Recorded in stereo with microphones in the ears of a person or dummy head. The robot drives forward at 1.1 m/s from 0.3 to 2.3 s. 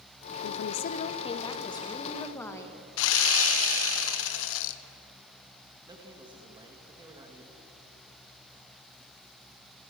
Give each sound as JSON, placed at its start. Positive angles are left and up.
{"t": 0.4, "sound": "a woman speaking", "side_deg": 75, "distance_m": 0.7}
{"t": 3.0, "sound": "sawing", "side_deg": 70, "distance_m": 0.9}
{"t": 5.9, "sound": "a man speaking", "side_deg": -25, "distance_m": 2.0}